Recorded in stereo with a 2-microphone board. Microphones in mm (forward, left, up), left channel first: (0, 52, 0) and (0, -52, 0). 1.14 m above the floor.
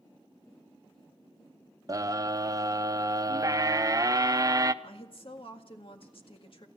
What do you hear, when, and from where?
1.9 s a scream: 35° right (ahead or behind), 0.8 m
4.8 s a woman speaking: 60° left (ahead or behind), 1.9 m